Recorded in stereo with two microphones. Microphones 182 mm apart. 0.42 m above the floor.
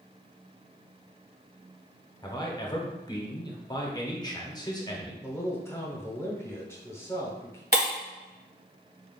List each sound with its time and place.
2.2 s a man speaking: 20° left (ahead or behind), 0.8 m
5.2 s a man speaking: 15° left (ahead or behind), 0.9 m
7.7 s breaking glass: 60° right (ahead or behind), 1.6 m